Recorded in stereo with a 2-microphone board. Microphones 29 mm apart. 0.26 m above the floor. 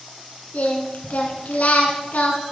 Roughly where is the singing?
Left.